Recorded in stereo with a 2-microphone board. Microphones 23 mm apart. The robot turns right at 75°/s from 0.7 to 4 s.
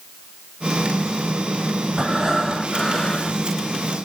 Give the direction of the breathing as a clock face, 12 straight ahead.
2 o'clock.